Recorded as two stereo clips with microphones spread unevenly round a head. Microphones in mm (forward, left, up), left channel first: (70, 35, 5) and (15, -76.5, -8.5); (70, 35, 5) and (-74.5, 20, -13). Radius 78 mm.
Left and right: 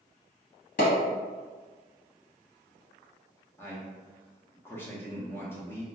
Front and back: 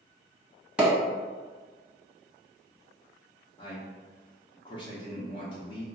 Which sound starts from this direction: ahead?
A man speaking, at 3.6 s.